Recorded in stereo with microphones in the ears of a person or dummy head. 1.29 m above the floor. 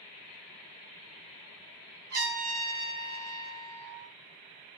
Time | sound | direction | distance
2.1 | a trumpet | 55° right (ahead or behind) | 1.3 m